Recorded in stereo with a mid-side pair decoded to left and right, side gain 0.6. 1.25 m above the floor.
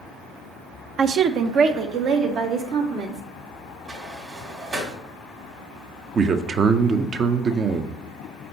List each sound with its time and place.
1.0 s a woman speaking: 45° right, 0.5 m; by 3.2 s 60° right, 1.7 m
3.9 s a sliding door: 30° right, 1.8 m
6.2 s a man speaking: 35° right, 0.6 m